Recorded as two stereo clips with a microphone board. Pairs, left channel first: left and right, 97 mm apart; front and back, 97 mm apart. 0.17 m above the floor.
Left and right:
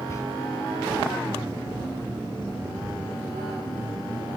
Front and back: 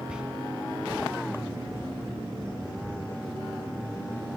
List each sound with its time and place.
0.1 s whispering: 105° left, 1.6 m